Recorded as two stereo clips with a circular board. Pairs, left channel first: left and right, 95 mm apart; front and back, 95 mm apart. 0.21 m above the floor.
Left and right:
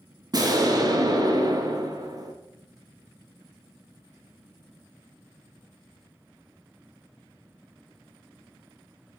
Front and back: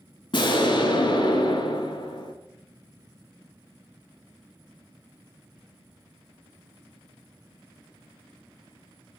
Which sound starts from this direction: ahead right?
An explosion, at 0.3 s.